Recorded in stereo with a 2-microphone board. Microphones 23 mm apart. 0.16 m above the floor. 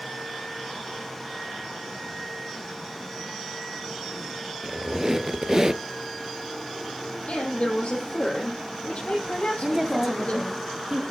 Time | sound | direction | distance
4.6 | a squeak | 25° right (ahead or behind) | 0.8 m
7.3 | a woman speaking | 60° left (ahead or behind) | 5.5 m
9.6 | a woman speaking | 25° right (ahead or behind) | 1.6 m